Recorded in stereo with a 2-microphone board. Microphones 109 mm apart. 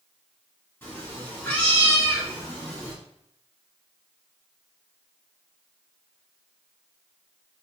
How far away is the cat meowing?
About 1.6 m.